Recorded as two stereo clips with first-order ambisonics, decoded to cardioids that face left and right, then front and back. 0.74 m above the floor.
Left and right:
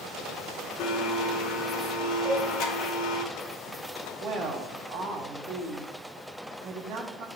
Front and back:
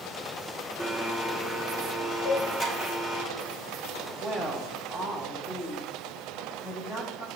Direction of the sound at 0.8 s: 65° left.